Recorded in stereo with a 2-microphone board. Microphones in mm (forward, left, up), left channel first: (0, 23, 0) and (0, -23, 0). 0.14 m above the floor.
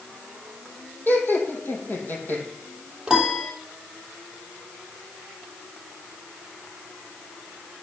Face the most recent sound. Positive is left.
turn(degrees=-20)  # may be behind; listen again after turning